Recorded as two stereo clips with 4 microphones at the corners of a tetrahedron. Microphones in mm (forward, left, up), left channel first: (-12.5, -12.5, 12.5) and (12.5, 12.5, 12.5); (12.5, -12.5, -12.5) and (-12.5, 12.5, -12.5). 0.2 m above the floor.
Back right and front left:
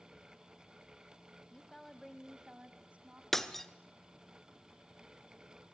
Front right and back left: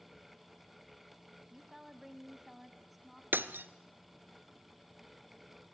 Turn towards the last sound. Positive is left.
turn(degrees=140)